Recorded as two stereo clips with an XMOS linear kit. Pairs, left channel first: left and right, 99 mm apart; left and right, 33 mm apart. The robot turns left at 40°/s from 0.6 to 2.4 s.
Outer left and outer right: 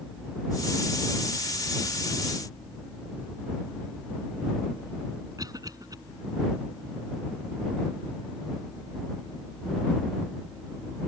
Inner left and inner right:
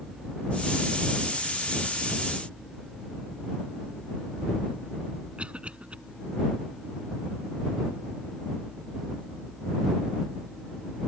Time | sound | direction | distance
5.4 | a cough | 40° right (ahead or behind) | ?